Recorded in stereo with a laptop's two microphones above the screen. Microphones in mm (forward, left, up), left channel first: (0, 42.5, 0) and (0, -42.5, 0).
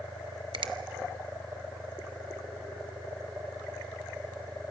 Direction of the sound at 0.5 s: 75° right (ahead or behind).